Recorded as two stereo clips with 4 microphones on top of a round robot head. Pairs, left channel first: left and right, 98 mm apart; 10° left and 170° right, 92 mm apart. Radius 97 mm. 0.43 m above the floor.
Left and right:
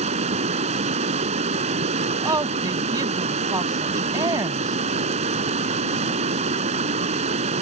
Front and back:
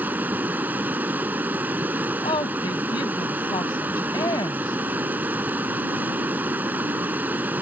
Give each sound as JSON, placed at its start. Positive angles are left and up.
{"t": 0.0, "sound": "running water", "azimuth_deg": -95}
{"t": 2.2, "sound": "a woman speaking", "azimuth_deg": -40}